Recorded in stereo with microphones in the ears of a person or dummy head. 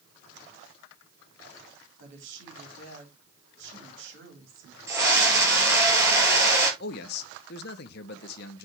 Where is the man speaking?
55° left (ahead or behind), 1.1 m.